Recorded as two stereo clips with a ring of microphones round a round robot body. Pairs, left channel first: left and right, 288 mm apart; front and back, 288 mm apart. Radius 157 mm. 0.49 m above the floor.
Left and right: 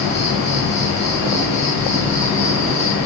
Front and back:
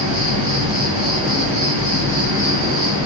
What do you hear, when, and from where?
0.0 s an insect: 170° left, 3.5 m